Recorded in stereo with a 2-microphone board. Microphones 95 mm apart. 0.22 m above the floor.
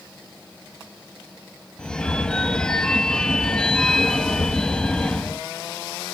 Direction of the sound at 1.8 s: 10° left (ahead or behind).